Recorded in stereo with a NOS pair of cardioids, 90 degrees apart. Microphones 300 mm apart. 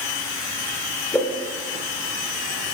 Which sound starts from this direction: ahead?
A whoosh, at 1.1 s.